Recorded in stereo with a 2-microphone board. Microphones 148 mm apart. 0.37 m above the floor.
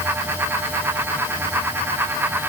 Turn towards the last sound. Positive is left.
No sound to turn to.